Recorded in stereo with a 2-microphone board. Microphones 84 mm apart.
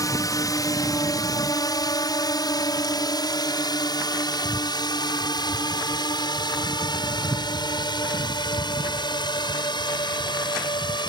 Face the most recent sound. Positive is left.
turn(degrees=65)  # may be behind; listen again after turning